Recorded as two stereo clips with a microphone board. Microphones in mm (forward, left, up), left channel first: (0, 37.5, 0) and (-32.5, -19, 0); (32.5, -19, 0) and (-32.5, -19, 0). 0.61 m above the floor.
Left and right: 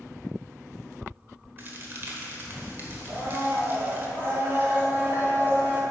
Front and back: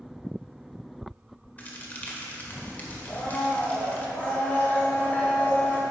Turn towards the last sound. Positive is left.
turn(degrees=-65)